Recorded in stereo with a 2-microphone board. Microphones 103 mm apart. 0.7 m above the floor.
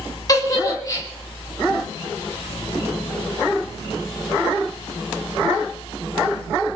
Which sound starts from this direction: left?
A giggle, at 0.3 s.